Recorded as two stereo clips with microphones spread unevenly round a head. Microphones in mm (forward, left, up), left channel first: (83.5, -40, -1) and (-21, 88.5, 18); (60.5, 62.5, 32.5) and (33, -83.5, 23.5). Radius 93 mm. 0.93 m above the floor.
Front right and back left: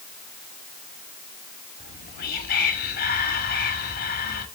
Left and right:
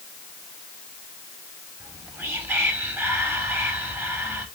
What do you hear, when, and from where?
1.8 s whispering: 25° right, 2.5 m